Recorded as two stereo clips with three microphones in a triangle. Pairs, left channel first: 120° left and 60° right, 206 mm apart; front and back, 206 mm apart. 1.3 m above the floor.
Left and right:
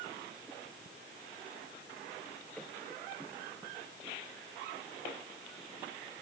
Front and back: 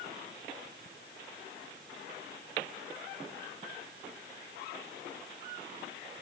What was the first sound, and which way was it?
Only background noise.